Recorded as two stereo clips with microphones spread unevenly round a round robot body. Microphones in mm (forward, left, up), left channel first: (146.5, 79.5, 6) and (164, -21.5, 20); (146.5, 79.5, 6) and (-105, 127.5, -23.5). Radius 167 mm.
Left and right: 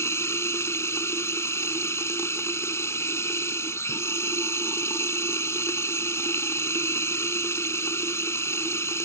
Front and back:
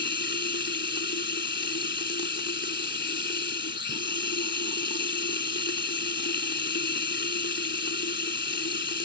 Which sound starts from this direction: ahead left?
Running water, at 0.0 s.